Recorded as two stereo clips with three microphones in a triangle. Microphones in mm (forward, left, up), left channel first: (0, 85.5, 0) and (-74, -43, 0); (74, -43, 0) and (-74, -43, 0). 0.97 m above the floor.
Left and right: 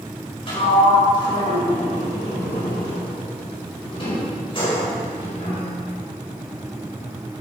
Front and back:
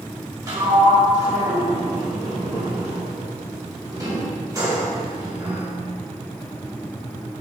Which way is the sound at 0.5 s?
115° left.